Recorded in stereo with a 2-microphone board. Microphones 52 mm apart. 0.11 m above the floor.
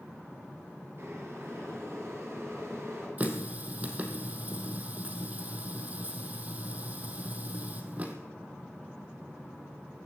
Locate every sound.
1.0 s boiling: 50° right (ahead or behind), 9 m
3.2 s a running tap: 30° right (ahead or behind), 2.5 m